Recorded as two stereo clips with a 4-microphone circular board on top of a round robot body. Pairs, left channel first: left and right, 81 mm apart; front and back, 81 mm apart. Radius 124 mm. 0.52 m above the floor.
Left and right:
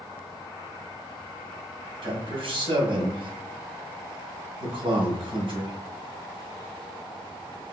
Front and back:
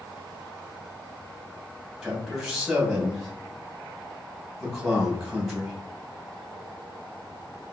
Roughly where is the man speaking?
Right.